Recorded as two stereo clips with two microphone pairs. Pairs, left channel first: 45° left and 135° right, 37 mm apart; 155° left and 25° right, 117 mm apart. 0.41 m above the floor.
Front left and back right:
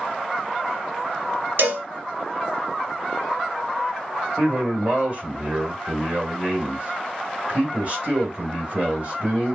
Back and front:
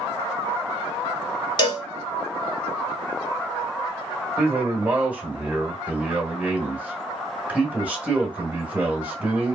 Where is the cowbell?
155° right, 0.7 m.